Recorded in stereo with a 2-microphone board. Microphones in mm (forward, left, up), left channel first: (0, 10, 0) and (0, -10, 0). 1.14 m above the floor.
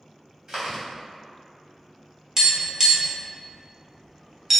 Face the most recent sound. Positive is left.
turn(degrees=-25)  # may be behind; listen again after turning